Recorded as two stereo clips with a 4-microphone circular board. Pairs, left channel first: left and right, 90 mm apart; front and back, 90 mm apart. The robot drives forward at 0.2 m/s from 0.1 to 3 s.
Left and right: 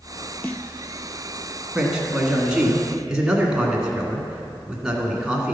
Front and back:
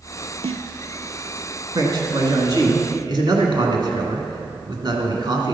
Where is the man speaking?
170° right, 1.8 m.